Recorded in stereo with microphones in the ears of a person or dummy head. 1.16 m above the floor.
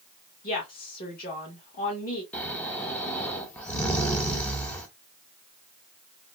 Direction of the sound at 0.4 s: 40° left (ahead or behind).